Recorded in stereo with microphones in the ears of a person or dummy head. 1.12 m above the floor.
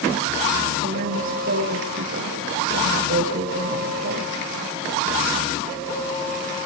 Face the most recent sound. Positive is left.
turn(degrees=-50)  # may be behind; listen again after turning